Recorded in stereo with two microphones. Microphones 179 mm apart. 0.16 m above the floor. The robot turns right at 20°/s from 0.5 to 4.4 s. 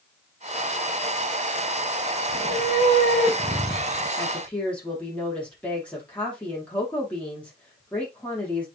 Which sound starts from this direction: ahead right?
A cat meowing, at 2.3 s.